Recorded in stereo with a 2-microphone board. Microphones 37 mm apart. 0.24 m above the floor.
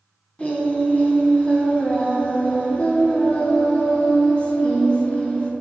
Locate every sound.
0.4 s singing: 40° left (ahead or behind), 1.9 m